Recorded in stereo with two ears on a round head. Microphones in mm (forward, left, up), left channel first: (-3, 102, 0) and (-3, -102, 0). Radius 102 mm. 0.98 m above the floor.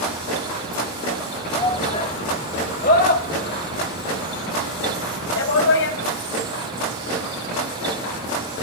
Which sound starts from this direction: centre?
A shout, at 1.5 s.